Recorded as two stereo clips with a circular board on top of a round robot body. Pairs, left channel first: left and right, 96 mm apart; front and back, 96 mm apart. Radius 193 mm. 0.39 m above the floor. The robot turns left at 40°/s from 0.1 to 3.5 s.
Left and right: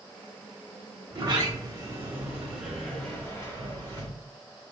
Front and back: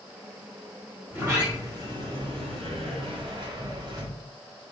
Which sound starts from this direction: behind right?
A sliding door, at 1.1 s.